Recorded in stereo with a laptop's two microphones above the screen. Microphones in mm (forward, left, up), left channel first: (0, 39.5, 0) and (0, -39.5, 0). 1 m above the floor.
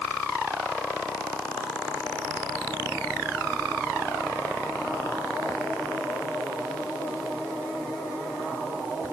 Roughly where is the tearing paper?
I don't hear tearing paper.